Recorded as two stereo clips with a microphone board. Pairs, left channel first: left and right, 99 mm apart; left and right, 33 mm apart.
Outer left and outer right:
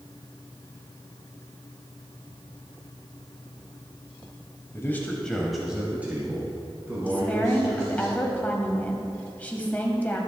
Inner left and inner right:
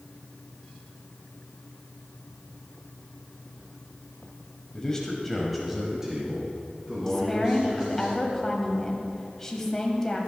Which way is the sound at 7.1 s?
15° left (ahead or behind).